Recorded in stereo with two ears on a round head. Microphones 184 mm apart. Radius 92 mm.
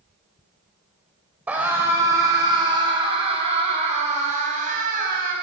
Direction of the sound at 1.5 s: 5° right (ahead or behind).